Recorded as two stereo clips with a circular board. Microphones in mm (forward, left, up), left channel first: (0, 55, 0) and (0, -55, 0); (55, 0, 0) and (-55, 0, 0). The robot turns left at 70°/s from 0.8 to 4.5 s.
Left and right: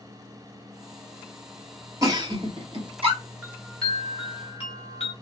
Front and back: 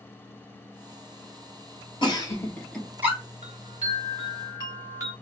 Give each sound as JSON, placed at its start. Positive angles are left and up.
{"t": 2.0, "sound": "a giggle", "azimuth_deg": -35, "distance_m": 1.8}
{"t": 3.4, "sound": "a chime", "azimuth_deg": -160, "distance_m": 2.0}